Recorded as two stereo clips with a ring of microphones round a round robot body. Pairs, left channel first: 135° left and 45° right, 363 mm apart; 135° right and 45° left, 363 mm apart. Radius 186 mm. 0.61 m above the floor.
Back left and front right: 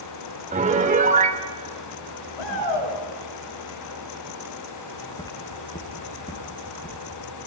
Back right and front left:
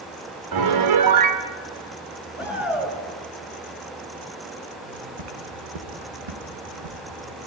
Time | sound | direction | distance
0.5 | a piano | 20° left | 2.5 m
2.4 | a shout | 130° left | 9.5 m
4.8 | footsteps | 50° left | 5.5 m